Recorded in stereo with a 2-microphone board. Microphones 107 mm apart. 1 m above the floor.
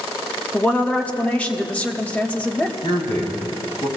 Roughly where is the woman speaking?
Centre.